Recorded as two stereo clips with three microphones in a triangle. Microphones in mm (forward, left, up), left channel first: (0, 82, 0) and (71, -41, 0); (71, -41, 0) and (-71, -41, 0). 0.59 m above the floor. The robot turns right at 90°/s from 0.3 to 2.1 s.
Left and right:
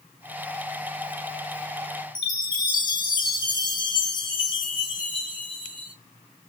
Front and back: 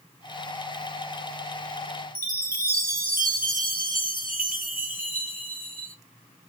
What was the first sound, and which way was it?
A chime, 175° left.